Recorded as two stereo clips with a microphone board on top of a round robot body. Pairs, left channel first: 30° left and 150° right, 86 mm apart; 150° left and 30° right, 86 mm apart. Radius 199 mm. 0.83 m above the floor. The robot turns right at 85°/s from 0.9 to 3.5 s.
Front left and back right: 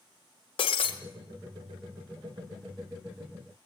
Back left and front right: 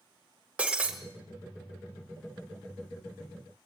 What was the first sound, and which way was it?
Breaking glass, 50° left.